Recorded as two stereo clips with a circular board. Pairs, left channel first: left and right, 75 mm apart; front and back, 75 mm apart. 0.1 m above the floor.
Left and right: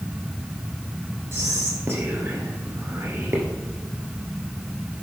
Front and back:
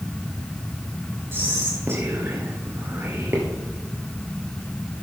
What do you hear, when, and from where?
1.3 s whispering: 135° right, 1.6 m